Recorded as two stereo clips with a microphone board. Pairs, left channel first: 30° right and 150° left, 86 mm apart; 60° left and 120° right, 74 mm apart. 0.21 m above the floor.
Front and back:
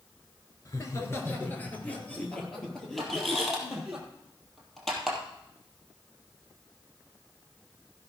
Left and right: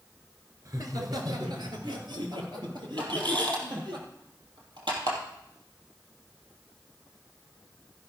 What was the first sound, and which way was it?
Laughter, 80° right.